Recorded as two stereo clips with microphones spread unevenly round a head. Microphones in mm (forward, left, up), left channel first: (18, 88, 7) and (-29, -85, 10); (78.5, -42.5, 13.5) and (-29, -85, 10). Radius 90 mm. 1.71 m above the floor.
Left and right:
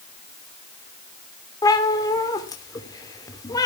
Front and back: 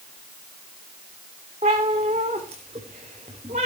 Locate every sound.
1.6 s a cat meowing: 145° left, 3 m